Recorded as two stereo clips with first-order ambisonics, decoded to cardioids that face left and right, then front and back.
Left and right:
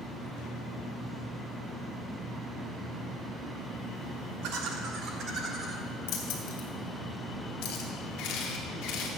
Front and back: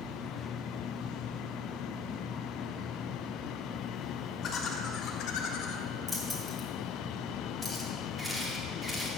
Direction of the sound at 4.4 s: 65° right.